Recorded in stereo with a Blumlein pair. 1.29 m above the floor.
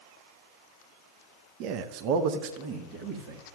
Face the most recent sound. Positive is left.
turn(degrees=-40)